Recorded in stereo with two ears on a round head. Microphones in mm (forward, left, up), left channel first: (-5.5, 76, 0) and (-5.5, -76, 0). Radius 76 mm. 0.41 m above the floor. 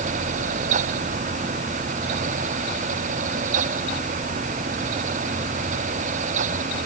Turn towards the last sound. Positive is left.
No sound to turn to.